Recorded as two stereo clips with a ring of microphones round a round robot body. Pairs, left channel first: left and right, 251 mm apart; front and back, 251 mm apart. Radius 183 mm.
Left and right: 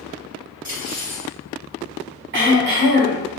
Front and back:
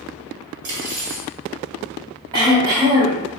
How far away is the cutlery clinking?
About 1.2 m.